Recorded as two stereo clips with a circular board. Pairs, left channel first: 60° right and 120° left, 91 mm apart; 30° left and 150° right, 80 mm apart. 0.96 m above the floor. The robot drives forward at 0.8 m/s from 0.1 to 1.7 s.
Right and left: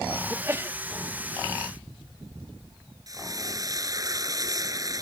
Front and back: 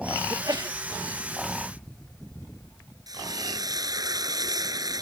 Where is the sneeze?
Straight behind.